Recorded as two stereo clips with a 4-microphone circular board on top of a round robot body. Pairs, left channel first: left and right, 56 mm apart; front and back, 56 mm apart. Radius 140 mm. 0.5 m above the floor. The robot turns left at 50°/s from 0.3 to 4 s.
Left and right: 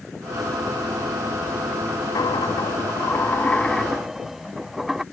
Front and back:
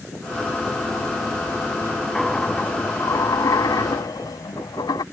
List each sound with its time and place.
2.1 s a dropped coin: 90° left; by 5.0 s 5° right